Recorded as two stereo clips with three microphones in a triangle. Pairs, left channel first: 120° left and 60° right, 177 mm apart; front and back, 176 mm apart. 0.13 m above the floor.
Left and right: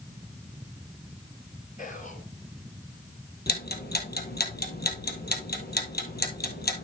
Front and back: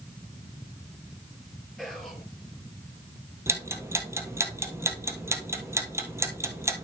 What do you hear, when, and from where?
1.8 s whispering: 90° left, 3 m
3.5 s ticking: 105° left, 1.5 m